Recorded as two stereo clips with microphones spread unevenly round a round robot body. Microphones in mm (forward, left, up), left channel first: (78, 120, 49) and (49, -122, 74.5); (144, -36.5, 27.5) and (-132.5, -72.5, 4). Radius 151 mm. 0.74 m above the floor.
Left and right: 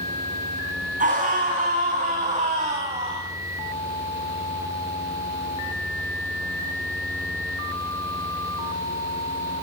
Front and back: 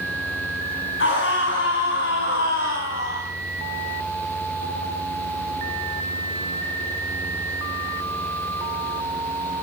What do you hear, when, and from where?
1.0 s a scream: 40° right, 8 m; by 3.3 s 35° right, 6 m